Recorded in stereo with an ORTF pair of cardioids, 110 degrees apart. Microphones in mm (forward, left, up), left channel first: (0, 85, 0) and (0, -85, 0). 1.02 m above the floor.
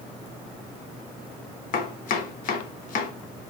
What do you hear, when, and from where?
1.7 s chopping: 55° left, 0.7 m